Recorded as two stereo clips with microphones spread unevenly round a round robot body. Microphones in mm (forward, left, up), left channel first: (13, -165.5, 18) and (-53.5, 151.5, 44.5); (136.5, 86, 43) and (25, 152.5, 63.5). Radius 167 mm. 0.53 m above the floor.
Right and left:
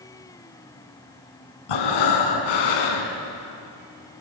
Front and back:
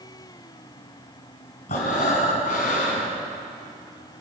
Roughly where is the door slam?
No door slam in this recording.